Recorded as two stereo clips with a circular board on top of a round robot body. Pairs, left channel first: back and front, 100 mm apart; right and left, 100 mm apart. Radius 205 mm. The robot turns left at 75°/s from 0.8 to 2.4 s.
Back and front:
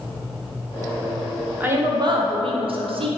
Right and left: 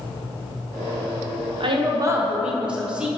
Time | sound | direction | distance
1.6 | a woman speaking | 70° left | 0.9 m